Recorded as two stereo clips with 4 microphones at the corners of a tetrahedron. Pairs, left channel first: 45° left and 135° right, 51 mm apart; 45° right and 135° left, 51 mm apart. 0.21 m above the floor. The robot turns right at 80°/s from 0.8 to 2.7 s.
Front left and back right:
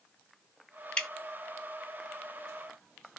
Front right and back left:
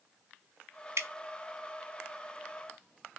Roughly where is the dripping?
Behind left.